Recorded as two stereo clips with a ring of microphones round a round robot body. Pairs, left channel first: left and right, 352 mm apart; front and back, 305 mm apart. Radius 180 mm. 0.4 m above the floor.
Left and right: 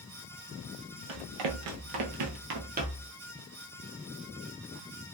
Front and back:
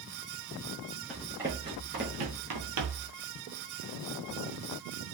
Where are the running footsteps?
90° right, 0.9 m; by 3.1 s 165° right, 0.8 m.